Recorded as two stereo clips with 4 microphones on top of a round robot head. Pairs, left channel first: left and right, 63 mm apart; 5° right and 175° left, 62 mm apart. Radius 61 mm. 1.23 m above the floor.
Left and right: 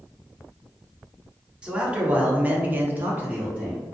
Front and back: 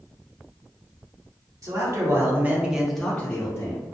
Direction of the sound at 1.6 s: 160° right.